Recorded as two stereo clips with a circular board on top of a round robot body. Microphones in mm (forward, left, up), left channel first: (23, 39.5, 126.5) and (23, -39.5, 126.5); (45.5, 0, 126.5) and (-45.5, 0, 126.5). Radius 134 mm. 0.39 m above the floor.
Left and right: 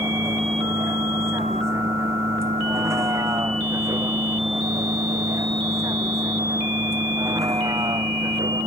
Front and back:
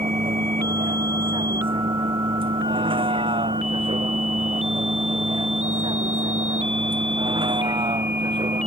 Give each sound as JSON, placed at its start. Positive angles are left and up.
{"t": 0.0, "sound": "a vehicle", "azimuth_deg": -150}